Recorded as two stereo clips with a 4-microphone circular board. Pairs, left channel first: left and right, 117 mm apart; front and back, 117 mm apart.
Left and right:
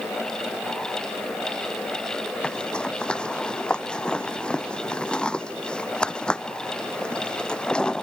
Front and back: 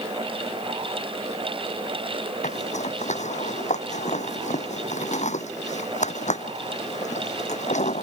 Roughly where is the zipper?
Ahead.